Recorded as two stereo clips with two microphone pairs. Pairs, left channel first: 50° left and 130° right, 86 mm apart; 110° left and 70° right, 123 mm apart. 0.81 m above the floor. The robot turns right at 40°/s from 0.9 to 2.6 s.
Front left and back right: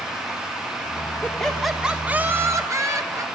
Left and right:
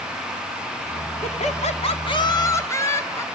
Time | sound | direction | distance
1.2 | laughter | 120° left | 2.0 m